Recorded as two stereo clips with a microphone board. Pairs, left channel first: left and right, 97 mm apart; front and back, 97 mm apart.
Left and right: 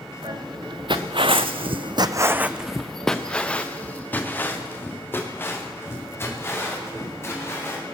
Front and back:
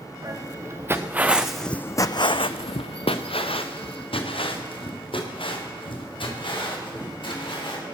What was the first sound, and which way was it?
Footsteps, 125° right.